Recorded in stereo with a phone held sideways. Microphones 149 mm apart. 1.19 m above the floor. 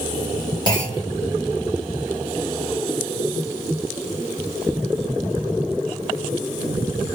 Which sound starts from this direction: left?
A clunk, at 0.7 s.